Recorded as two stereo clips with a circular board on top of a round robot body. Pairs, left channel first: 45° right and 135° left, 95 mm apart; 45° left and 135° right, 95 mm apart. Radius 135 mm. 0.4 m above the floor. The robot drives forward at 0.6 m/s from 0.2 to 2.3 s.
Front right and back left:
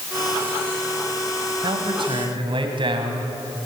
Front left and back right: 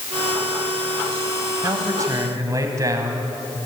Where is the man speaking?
165° left, 3 m; by 3.3 s 170° left, 3 m.